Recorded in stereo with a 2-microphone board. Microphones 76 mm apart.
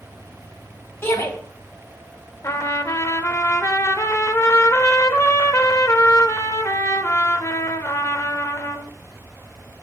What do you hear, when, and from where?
1.0 s a shout: 35° left (ahead or behind), 3.5 m
2.4 s a trumpet: 45° left (ahead or behind), 1.0 m